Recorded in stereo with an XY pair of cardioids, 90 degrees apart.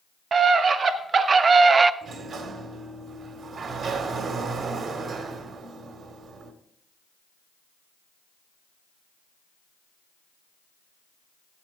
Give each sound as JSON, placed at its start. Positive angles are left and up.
{"t": 0.3, "sound": "a scream", "azimuth_deg": -60, "distance_m": 1.3}
{"t": 2.0, "sound": "a sliding door", "azimuth_deg": -70, "distance_m": 1.5}